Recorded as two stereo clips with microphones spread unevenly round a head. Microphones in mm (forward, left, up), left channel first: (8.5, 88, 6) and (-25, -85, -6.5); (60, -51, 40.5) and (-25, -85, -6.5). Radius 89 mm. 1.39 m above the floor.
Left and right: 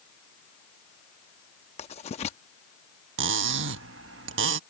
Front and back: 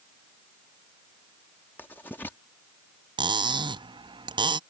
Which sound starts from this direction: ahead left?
Writing, at 1.8 s.